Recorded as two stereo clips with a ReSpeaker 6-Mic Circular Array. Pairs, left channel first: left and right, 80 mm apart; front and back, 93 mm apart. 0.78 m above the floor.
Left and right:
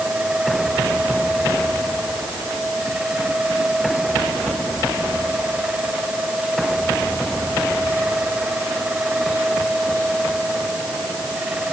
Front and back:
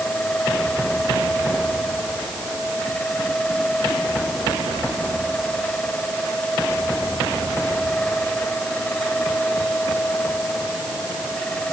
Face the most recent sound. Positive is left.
No sound to turn to.